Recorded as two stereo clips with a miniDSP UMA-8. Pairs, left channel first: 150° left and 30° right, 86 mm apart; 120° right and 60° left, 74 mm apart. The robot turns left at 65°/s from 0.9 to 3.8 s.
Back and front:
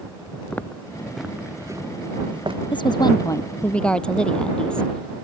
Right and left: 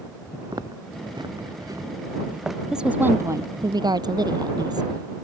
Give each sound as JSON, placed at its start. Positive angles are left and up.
{"t": 0.5, "sound": "footsteps", "azimuth_deg": 75}
{"t": 2.7, "sound": "a woman speaking", "azimuth_deg": 140}